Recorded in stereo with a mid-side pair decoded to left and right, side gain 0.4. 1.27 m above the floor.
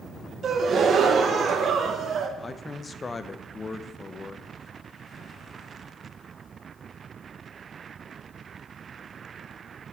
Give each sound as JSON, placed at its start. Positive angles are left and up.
{"t": 0.4, "sound": "a gasp", "azimuth_deg": -60, "distance_m": 1.1}
{"t": 2.4, "sound": "a man speaking", "azimuth_deg": 30, "distance_m": 0.8}